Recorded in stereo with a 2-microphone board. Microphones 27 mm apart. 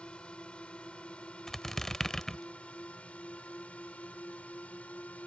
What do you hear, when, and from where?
0.0 s a drone: 45° left (ahead or behind); by 5.3 s 65° left (ahead or behind)
1.5 s a squeak: 15° left (ahead or behind)